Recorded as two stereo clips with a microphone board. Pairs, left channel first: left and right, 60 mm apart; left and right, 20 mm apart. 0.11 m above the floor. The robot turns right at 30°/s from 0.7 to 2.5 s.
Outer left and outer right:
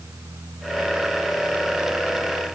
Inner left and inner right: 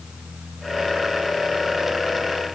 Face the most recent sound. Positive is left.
No sound to turn to.